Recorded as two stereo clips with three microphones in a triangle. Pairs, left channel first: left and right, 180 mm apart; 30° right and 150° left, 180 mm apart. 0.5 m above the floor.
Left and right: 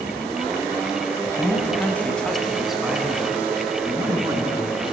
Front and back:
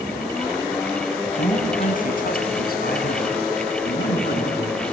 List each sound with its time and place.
1.2 s a man speaking: 20° left, 4 m; by 4.8 s 20° right, 6.5 m